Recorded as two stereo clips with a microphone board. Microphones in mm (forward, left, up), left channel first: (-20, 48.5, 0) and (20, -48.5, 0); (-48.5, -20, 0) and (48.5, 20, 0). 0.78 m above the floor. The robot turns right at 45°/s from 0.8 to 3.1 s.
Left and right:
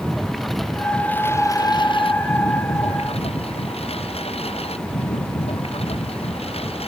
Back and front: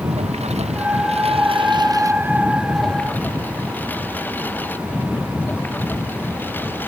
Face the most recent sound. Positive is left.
turn(degrees=130)